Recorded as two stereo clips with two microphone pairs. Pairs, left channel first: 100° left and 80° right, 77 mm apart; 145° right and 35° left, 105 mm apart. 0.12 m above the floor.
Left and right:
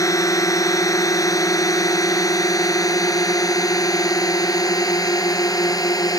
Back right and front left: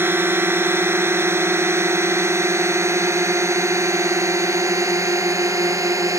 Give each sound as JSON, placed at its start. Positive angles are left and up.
{"t": 0.0, "sound": "a drone", "azimuth_deg": 95}